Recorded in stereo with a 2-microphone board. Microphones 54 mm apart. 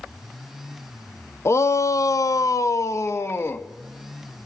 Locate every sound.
1.4 s a shout: 55° left (ahead or behind), 0.6 m; by 3.7 s 40° left (ahead or behind), 1.0 m